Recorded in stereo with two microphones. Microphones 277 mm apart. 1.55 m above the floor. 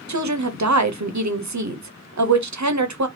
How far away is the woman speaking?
About 0.7 m.